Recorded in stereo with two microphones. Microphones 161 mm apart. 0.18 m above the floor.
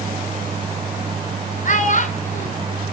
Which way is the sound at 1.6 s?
50° left (ahead or behind).